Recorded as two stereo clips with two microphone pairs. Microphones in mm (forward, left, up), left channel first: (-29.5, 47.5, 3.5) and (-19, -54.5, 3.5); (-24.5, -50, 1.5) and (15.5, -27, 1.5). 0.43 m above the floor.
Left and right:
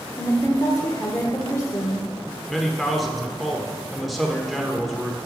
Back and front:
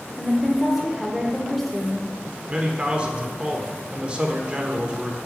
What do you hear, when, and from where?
0.2 s a woman speaking: 125° left, 1.0 m
2.5 s a man speaking: 5° left, 1.0 m